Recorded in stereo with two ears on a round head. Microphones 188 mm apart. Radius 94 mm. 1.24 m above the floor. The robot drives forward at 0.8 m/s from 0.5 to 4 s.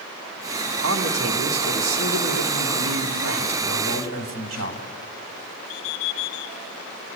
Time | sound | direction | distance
0.8 | a man speaking | 70° right (ahead or behind) | 3.5 m